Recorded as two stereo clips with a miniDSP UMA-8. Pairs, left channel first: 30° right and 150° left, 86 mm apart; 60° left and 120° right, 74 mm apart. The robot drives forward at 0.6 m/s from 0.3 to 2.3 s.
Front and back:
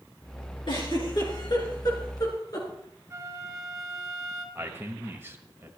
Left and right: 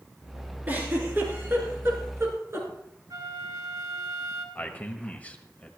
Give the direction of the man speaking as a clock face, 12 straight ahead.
8 o'clock.